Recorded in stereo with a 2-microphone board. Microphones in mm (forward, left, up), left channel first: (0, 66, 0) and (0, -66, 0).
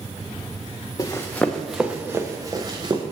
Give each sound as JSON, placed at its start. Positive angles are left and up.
{"t": 1.0, "sound": "running footsteps", "side_deg": 25, "distance_m": 0.8}